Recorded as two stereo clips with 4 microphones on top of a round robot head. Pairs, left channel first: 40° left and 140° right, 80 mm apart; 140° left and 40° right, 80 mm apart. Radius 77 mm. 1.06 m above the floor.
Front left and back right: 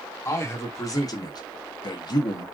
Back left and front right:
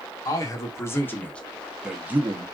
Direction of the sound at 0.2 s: 95° left.